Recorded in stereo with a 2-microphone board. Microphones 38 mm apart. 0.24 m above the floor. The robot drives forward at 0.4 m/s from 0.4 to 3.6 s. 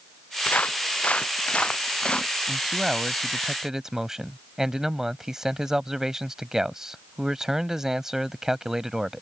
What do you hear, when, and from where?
0.5 s footsteps: 45° left (ahead or behind); by 2.3 s 30° left (ahead or behind)
2.5 s a man speaking: 10° right (ahead or behind); by 9.2 s 15° right (ahead or behind)